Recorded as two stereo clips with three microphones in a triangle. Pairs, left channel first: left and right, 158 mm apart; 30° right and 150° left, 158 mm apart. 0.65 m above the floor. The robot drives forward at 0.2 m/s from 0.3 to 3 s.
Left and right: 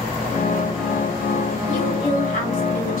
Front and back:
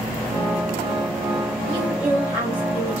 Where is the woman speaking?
60° left, 1.4 m; by 3.0 s 70° left, 1.3 m.